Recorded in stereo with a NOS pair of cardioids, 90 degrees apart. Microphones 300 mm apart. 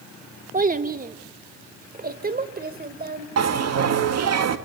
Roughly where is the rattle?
I don't hear a rattle.